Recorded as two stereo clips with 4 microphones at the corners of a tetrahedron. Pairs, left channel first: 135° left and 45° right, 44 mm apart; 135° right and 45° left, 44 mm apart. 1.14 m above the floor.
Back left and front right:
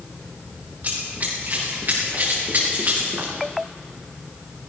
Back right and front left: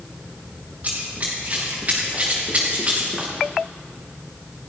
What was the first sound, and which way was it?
Running footsteps, straight ahead.